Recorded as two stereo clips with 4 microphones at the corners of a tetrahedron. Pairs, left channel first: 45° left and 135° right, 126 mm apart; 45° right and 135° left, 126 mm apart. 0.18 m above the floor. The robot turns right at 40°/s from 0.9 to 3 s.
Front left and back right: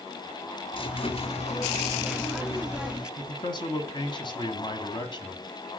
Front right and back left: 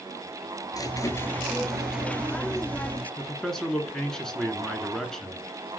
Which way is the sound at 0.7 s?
10° left.